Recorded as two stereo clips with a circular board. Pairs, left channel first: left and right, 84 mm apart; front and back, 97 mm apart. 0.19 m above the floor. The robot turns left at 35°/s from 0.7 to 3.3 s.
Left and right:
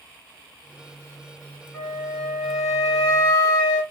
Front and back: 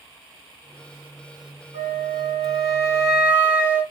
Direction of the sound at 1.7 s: 165° left.